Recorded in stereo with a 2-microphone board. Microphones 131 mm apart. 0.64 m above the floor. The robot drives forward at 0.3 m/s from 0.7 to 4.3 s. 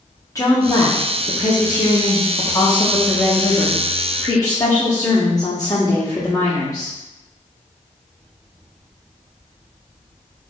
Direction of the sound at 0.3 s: 25° left (ahead or behind).